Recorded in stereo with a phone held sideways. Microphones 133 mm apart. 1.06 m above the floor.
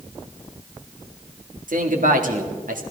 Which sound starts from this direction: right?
A man speaking, at 1.7 s.